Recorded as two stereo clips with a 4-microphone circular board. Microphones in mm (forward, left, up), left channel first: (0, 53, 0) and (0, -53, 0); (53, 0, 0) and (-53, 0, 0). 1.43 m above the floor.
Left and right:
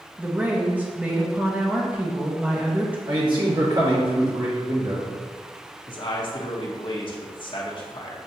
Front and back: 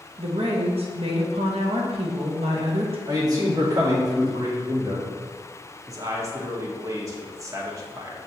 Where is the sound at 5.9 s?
125° left, 1.0 m.